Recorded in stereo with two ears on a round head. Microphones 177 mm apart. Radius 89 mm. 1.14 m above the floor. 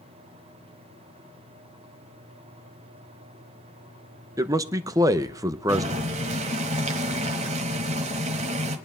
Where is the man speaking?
15° right (ahead or behind), 0.7 m.